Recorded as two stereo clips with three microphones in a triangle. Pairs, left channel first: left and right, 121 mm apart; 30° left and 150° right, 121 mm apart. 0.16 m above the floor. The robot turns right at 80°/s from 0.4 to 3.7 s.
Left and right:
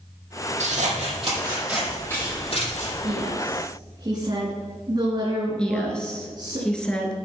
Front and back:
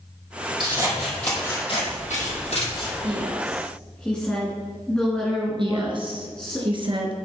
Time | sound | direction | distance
0.6 | scissors | 100° right | 5 m
3.0 | a woman speaking | 105° right | 2.5 m
5.6 | a woman speaking | 170° left | 3 m